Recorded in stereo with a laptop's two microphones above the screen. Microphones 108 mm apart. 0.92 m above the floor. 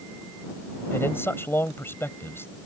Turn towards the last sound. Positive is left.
turn(degrees=20)  # may be behind; listen again after turning